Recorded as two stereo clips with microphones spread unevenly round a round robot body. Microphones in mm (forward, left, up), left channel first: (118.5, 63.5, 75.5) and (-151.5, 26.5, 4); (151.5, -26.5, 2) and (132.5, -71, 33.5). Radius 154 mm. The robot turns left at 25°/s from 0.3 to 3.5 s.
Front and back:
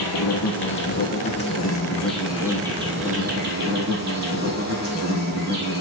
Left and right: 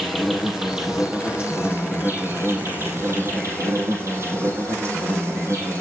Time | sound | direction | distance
0.0 | an insect | 35° right | 3 m